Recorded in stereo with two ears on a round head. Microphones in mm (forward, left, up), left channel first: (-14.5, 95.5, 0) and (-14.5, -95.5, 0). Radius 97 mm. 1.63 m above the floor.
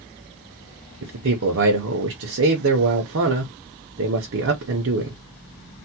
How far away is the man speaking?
About 0.7 m.